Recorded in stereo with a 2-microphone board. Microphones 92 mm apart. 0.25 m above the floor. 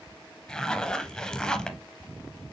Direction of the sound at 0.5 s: 10° left (ahead or behind).